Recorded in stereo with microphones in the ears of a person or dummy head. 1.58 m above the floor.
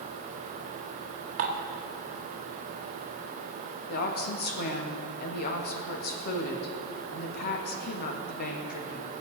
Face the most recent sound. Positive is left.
turn(degrees=50)  # may be behind; listen again after turning